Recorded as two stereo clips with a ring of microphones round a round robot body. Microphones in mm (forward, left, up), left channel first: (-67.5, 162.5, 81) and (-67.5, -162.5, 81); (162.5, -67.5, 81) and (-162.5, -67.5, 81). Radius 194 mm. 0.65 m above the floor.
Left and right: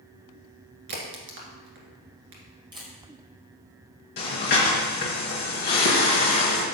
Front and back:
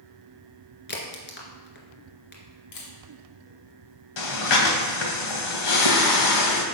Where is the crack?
60° right, 1.7 m.